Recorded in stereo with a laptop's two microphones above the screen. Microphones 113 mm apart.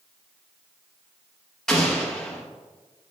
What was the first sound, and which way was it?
An explosion, 5° left (ahead or behind).